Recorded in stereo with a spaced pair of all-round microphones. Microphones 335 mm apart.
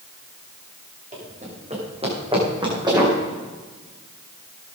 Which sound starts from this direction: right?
Running footsteps, at 1.1 s.